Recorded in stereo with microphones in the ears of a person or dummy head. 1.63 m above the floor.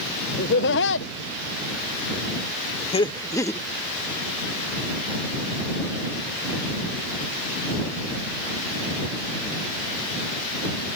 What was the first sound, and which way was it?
Laughter, 55° left (ahead or behind).